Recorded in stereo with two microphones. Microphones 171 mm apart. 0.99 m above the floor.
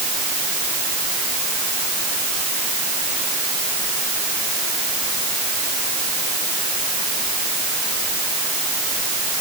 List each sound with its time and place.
Only background noise.